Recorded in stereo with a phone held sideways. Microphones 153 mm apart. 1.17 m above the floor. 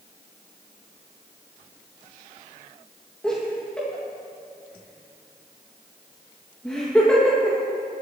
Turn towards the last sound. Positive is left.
turn(degrees=5)  # may be behind; listen again after turning